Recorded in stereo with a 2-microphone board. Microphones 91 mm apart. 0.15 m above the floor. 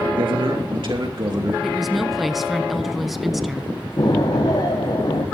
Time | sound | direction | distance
0.1 | a man speaking | 65° right (ahead or behind) | 2 m
1.6 | a woman speaking | centre (ahead or behind) | 1.0 m
4.0 | an explosion | 55° left (ahead or behind) | 5 m